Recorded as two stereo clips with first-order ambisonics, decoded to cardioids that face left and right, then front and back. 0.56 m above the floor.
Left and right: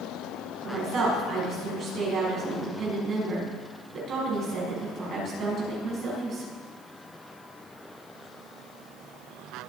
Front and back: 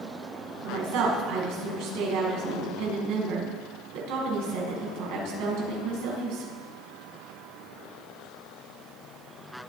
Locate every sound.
0.6 s a woman speaking: 150° right, 5.5 m